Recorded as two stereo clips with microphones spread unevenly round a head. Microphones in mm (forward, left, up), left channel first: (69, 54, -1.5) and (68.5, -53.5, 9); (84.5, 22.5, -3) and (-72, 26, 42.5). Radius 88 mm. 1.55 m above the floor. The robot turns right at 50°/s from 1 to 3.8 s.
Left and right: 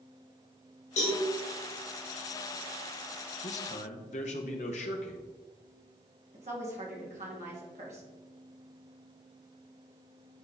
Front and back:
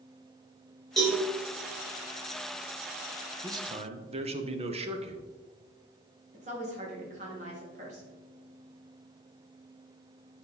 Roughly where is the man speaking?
Left.